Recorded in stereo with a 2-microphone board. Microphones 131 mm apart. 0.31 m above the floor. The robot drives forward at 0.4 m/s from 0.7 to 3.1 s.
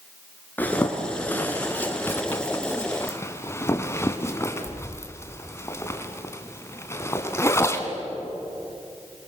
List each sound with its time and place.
0.6 s a zipper: 15° left (ahead or behind), 2.5 m; by 7.9 s 20° left (ahead or behind), 1.7 m